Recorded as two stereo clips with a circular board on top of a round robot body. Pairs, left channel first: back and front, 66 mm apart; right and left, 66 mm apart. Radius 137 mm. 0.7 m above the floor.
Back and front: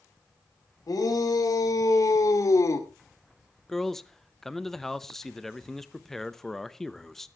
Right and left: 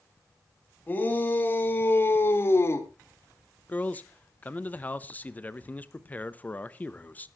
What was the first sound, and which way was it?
A shout, 155° right.